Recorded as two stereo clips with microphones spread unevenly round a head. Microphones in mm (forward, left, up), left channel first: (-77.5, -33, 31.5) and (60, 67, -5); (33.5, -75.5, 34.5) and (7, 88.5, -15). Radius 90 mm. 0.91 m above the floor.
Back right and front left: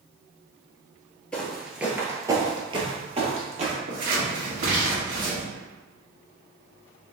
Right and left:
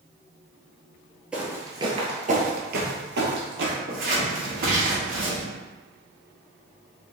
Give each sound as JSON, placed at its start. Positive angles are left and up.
{"t": 1.3, "sound": "footsteps", "azimuth_deg": -130, "distance_m": 0.9}
{"t": 3.9, "sound": "scissors", "azimuth_deg": 65, "distance_m": 1.5}